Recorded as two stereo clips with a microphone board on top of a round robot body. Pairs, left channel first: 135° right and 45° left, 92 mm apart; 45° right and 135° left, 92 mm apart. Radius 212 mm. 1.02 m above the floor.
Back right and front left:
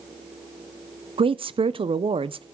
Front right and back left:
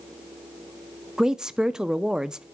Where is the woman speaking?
50° left, 0.6 m.